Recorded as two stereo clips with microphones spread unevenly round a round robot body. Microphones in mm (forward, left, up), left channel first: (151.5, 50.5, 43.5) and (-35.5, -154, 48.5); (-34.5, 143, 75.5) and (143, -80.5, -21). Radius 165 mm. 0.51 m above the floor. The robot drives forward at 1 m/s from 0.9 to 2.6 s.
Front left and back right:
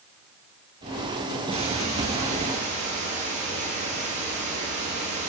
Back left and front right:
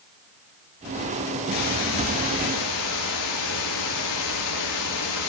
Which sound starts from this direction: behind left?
A hiss, at 1.5 s.